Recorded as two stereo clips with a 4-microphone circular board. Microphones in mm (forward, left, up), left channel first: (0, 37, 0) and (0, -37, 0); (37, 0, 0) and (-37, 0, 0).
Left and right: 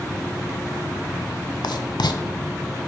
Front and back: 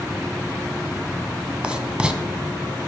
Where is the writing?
100° left, 0.6 m.